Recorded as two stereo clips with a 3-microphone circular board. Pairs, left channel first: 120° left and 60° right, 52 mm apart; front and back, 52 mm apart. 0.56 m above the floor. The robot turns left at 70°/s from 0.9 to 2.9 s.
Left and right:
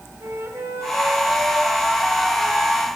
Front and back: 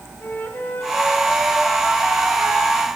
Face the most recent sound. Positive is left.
turn(degrees=170)